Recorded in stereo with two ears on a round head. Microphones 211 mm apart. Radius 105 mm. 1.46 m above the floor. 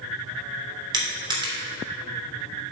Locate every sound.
0.9 s crushing: 20° right (ahead or behind), 3 m